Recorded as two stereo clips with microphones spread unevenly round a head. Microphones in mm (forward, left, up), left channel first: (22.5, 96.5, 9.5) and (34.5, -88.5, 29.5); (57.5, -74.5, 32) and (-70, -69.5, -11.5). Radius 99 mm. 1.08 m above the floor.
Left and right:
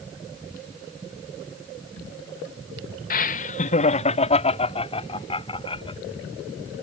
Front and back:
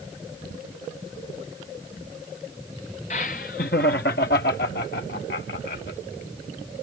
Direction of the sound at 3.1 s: 60° left.